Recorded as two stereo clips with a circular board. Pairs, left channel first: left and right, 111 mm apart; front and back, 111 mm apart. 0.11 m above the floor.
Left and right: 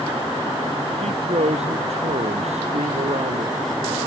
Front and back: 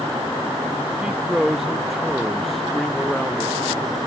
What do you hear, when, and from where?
1.0 s a man speaking: 100° right; by 3.5 s 80° right